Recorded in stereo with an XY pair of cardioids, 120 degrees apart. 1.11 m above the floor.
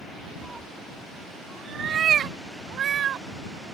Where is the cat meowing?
5° right; by 3.2 s 55° right.